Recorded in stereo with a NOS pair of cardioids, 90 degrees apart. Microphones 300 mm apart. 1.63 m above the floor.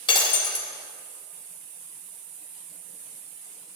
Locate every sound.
0.1 s breaking glass: 15° left, 3 m